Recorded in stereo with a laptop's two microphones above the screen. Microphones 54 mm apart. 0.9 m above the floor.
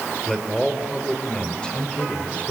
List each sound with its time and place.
0.3 s a man speaking: 5° left (ahead or behind), 3 m; by 2.5 s 25° left (ahead or behind), 3 m